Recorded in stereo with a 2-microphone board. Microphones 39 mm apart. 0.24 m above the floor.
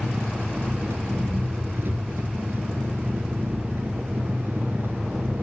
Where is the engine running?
70° right (ahead or behind), 1.0 m.